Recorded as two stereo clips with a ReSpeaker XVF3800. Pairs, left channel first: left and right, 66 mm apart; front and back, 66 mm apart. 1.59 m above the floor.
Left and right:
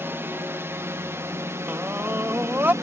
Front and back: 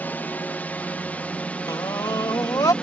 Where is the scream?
30° right.